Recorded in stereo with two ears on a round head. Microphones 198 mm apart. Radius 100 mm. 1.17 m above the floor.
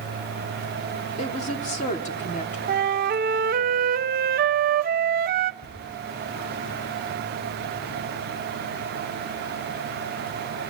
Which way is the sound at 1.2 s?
35° left (ahead or behind).